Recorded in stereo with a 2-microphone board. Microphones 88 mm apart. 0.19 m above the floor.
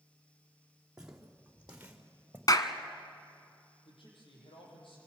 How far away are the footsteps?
About 4 m.